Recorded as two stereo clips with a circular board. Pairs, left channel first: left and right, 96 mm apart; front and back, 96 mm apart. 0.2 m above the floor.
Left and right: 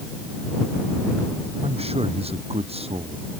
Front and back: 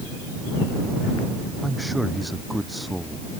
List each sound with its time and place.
1.6 s a man speaking: 90° right